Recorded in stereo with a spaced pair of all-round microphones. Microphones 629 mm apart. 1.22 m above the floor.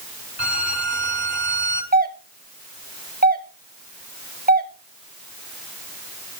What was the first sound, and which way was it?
A violin, 40° right (ahead or behind).